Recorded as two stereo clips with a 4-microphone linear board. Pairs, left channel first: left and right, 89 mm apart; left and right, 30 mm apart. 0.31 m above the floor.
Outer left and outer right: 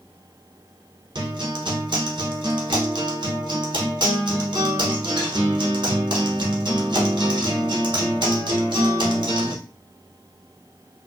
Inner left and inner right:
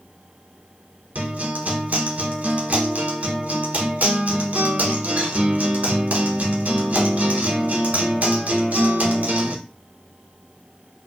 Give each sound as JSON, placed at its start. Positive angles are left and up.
{"t": 1.1, "sound": "a guitar", "side_deg": -60, "distance_m": 0.8}